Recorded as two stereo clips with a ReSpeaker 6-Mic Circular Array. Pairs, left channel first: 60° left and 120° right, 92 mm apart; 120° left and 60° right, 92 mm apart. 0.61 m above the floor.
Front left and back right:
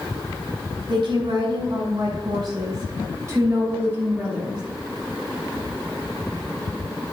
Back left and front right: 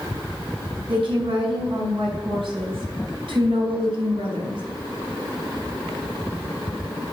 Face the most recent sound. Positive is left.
turn(degrees=-40)